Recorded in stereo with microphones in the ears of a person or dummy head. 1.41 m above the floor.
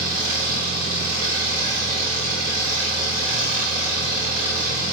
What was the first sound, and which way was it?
An engine running, 60° right (ahead or behind).